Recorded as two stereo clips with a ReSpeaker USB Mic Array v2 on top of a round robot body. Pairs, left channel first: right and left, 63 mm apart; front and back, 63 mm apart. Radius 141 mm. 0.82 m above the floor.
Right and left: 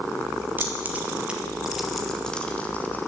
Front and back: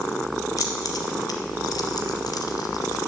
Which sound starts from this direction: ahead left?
Keys jangling, at 0.6 s.